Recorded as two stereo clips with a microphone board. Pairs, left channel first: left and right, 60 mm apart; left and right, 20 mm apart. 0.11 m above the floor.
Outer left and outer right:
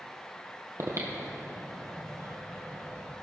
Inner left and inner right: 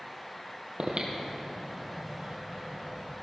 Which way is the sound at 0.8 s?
55° right (ahead or behind).